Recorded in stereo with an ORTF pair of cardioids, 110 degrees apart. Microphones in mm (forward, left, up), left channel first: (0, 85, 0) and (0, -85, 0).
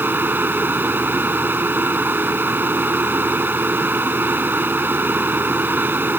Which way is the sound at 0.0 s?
10° right.